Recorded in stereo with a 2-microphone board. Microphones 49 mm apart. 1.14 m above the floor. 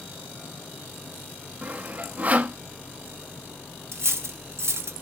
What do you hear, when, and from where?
1.6 s sawing: 35° right (ahead or behind), 1.1 m
3.9 s cutlery clinking: 65° right (ahead or behind), 0.8 m